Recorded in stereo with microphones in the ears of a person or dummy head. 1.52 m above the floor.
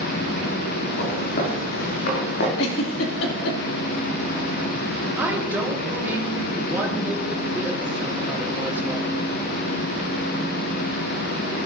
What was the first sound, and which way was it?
Footsteps, 45° left (ahead or behind).